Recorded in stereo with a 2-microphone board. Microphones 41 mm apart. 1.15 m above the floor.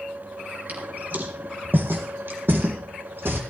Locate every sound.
0.7 s footsteps: 45° right (ahead or behind), 3.5 m; by 3.4 s 65° right (ahead or behind), 3.5 m